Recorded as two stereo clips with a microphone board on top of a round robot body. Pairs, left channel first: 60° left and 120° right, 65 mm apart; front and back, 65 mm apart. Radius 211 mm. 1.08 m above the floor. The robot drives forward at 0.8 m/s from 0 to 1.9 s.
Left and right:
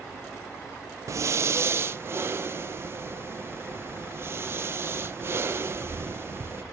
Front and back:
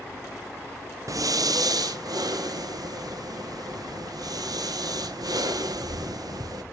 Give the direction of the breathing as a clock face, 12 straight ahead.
5 o'clock.